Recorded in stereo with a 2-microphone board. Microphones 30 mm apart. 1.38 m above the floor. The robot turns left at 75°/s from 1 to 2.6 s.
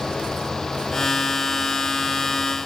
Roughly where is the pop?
No pop in this recording.